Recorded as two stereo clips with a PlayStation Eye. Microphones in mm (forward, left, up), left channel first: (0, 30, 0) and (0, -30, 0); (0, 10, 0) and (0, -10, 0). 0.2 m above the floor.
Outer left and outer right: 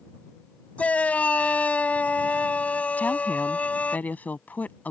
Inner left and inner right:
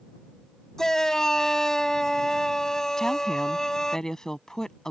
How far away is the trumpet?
No trumpet in this recording.